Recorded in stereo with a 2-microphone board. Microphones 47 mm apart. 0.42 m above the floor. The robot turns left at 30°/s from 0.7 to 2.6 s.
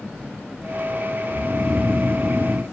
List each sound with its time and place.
1.3 s snoring: 25° left, 1.0 m; by 2.6 s 15° right, 1.0 m